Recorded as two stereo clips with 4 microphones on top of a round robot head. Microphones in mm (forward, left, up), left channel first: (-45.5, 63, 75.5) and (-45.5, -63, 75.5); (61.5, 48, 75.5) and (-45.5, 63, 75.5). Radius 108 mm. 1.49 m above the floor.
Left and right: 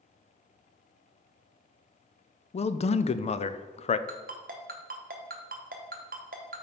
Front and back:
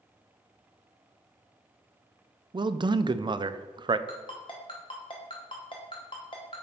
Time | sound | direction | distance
2.5 | a man speaking | 125° left | 0.5 m
4.1 | a ringtone | 65° right | 0.7 m